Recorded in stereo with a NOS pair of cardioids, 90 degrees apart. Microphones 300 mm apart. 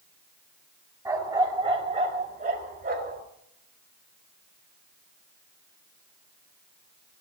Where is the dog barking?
15° right, 4 m; by 3.2 s 35° right, 5 m.